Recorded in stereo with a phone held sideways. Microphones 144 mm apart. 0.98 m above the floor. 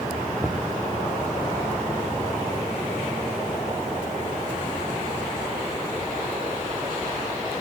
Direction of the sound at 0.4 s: Centre (ahead or behind).